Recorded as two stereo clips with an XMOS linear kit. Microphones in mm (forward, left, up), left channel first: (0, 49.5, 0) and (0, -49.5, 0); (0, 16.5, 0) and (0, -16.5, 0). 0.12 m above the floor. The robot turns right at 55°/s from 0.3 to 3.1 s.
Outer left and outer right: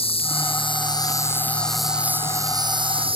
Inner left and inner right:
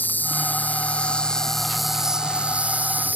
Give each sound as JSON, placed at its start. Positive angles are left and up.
{"t": 0.0, "sound": "an insect", "azimuth_deg": 95}